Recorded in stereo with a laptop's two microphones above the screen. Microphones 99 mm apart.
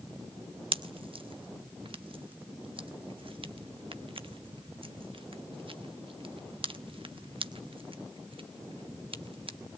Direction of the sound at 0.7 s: 60° right (ahead or behind).